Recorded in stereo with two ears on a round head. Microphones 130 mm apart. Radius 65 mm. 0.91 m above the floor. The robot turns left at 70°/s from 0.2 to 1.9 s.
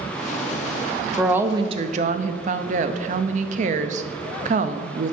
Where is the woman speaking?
Straight ahead, 0.6 m; by 5.1 s 50° right, 0.6 m.